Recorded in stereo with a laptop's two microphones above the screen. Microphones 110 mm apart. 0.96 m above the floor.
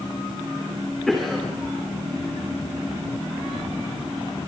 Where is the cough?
5° left (ahead or behind), 3 m.